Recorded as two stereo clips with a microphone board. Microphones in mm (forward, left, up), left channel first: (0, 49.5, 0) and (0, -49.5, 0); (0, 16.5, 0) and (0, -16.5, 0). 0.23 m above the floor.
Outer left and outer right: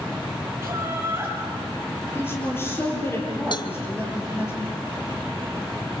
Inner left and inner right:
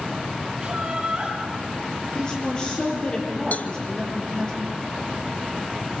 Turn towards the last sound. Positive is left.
turn(degrees=50)  # may be behind; listen again after turning